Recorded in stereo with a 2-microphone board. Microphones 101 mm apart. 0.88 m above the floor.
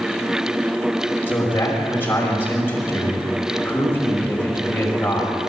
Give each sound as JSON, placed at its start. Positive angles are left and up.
{"t": 1.3, "sound": "a man speaking", "side_deg": 20, "distance_m": 5.5}